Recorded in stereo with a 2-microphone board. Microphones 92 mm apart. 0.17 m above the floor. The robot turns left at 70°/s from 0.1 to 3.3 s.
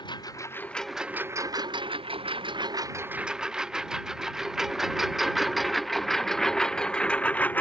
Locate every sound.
0.0 s a lawn mower: 55° left (ahead or behind); by 7.6 s 20° left (ahead or behind)